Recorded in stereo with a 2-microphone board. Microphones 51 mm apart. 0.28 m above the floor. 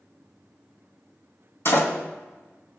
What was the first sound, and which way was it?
A door slam, 60° left (ahead or behind).